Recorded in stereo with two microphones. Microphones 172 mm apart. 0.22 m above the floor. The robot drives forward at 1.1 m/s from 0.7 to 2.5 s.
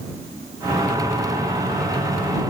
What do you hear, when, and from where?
Only background noise.